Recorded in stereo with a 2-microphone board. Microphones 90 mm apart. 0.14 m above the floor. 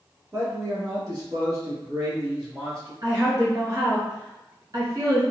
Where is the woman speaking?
45° right (ahead or behind), 1.8 m.